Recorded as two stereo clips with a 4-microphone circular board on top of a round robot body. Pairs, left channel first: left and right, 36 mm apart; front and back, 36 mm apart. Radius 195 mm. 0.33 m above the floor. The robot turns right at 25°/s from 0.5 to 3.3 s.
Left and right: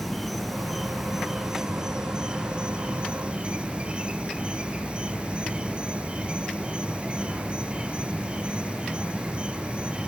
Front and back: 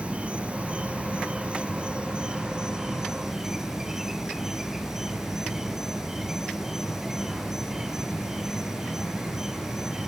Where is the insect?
Straight behind, 1.0 m; by 10.1 s 110° right, 1.0 m.